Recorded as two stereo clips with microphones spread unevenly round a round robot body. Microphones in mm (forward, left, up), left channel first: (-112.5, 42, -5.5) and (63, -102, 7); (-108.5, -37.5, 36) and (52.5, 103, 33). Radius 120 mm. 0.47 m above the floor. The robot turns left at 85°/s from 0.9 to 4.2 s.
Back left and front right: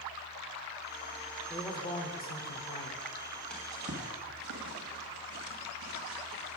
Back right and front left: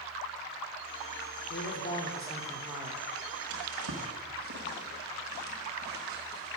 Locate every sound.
1.5 s a man speaking: 140° right, 1.2 m; by 3.1 s 90° left, 1.2 m
3.5 s a drawer: 55° left, 1.8 m; by 6.6 s 5° right, 1.8 m